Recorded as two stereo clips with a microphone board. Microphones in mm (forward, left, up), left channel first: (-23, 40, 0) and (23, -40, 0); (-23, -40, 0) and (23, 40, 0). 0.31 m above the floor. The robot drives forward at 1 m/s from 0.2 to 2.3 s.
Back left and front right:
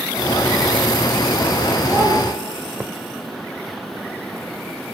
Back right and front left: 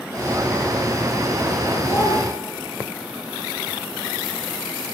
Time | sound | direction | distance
1.9 | a child speaking | 85° right | 0.7 m